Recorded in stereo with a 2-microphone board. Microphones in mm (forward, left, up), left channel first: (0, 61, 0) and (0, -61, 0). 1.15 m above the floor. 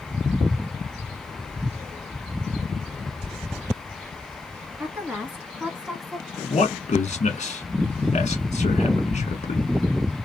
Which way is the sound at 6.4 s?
65° left (ahead or behind).